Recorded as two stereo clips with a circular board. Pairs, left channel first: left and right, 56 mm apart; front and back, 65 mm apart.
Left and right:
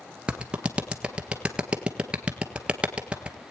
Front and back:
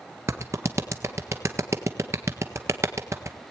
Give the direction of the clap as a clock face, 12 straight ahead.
5 o'clock.